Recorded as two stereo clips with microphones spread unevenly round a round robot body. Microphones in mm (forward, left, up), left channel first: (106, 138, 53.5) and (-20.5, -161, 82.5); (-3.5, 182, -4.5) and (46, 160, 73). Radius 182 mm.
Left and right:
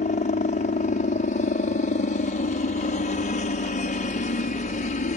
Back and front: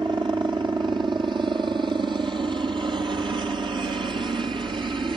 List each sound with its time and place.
0.0 s a helicopter: 5° left